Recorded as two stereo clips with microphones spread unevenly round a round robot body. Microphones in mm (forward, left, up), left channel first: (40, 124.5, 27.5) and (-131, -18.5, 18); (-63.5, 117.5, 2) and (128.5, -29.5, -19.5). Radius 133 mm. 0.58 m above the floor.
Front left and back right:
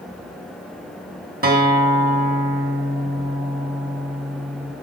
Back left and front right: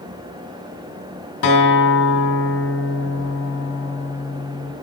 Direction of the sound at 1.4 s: Straight behind.